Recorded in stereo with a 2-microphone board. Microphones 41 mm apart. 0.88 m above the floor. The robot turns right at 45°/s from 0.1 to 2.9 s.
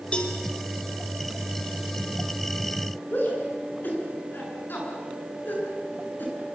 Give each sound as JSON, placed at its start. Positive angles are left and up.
{"t": 0.1, "sound": "a cowbell", "side_deg": 30, "distance_m": 4.0}
{"t": 3.1, "sound": "a shout", "side_deg": 55, "distance_m": 9.0}